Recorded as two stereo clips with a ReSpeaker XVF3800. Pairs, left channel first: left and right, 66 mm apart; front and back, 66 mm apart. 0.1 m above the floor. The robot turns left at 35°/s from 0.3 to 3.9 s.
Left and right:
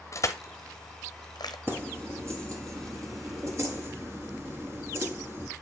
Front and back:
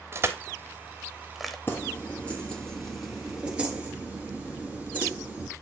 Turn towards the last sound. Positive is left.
turn(degrees=-125)